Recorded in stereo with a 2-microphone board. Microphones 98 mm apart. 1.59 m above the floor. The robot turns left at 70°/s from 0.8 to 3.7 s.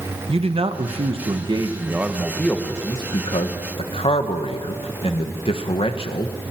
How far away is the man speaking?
About 1.4 m.